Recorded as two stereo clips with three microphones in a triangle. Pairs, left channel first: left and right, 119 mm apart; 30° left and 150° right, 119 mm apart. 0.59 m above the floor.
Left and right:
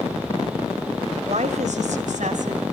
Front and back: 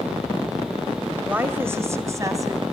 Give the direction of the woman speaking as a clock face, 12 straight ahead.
2 o'clock.